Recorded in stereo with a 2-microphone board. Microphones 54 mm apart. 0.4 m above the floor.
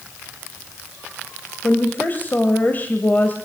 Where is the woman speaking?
35° left (ahead or behind), 2 m.